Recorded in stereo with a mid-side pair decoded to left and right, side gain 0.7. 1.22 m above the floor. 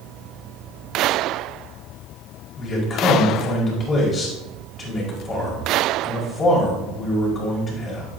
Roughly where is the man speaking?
Ahead left.